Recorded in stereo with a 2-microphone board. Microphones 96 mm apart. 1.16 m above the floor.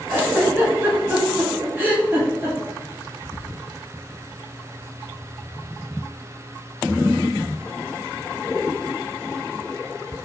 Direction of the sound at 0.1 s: 20° right (ahead or behind).